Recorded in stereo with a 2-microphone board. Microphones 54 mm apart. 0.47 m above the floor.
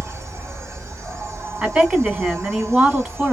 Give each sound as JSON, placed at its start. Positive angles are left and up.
{"t": 0.0, "sound": "an insect", "side_deg": -60, "distance_m": 2.0}
{"t": 1.6, "sound": "a woman speaking", "side_deg": -25, "distance_m": 1.9}